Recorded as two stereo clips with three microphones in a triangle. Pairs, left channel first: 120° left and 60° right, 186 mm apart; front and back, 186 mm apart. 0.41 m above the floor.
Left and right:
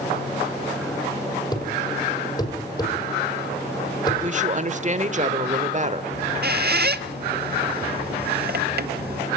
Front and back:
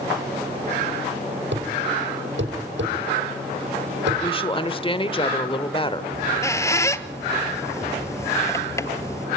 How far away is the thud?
About 6.5 m.